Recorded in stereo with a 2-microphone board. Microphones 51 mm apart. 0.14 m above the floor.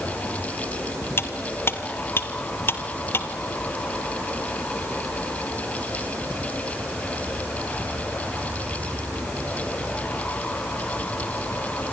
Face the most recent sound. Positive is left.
turn(degrees=50)  # may be behind; listen again after turning